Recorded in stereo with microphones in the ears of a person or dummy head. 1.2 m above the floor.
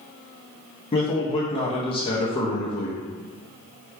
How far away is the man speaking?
About 0.7 m.